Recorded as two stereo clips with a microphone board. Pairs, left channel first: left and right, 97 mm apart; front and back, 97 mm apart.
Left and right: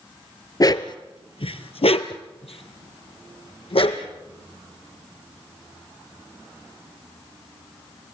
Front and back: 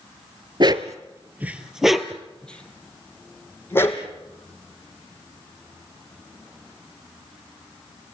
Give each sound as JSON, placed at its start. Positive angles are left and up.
{"t": 0.6, "sound": "a dog barking", "azimuth_deg": 140, "distance_m": 0.9}